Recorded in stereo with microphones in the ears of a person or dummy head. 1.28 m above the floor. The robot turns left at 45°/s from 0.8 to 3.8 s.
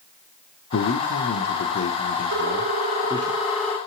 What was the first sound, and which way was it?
A man speaking, 120° left.